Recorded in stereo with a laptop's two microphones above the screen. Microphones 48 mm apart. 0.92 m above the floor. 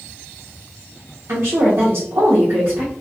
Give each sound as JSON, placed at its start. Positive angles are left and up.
{"t": 1.3, "sound": "a woman speaking", "side_deg": -65, "distance_m": 0.8}